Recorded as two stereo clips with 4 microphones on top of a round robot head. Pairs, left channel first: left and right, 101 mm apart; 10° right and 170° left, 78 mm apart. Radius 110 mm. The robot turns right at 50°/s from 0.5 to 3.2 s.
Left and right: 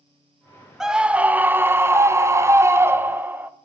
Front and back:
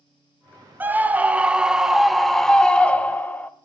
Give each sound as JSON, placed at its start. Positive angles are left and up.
{"t": 0.8, "sound": "a scream", "azimuth_deg": -170, "distance_m": 0.7}